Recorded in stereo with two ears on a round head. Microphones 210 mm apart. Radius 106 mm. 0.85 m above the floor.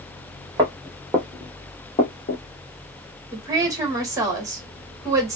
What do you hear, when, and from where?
0.6 s footsteps: 20° right (ahead or behind), 1.4 m; by 2.4 s 40° left (ahead or behind), 1.1 m
3.3 s a woman speaking: 15° right (ahead or behind), 1.2 m